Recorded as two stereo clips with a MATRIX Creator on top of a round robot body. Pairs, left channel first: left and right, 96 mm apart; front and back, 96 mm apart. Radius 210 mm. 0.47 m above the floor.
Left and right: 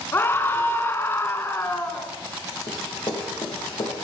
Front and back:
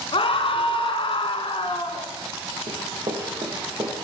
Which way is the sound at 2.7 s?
140° left.